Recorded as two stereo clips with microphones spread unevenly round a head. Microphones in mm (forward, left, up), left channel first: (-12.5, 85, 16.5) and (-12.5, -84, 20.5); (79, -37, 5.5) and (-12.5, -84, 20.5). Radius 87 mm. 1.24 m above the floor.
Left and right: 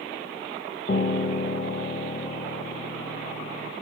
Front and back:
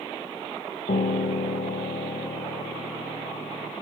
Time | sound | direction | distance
0.9 | a piano | 40° left | 0.6 m